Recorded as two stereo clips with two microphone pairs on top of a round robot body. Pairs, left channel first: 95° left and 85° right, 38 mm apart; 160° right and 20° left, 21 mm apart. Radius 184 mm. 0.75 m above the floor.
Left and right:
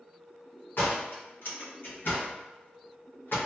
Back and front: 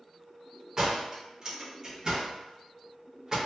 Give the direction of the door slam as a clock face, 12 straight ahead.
9 o'clock.